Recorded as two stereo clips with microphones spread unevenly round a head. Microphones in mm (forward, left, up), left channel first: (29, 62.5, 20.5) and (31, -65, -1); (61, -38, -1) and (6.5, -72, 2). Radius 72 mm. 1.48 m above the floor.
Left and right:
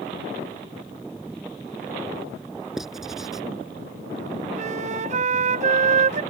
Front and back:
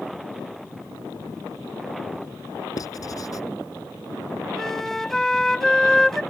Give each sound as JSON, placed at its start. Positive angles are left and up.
{"t": 2.8, "sound": "writing", "azimuth_deg": 0}
{"t": 4.5, "sound": "a flute", "azimuth_deg": -55}